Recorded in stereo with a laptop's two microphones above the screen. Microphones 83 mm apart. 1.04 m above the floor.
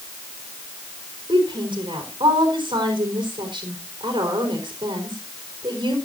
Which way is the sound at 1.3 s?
80° right.